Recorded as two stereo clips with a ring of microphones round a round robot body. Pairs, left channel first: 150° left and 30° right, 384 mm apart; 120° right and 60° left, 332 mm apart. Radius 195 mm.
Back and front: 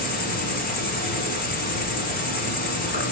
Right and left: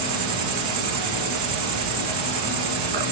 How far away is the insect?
About 1.4 m.